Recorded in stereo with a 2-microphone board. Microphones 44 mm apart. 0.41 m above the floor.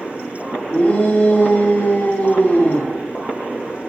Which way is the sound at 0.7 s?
45° left (ahead or behind).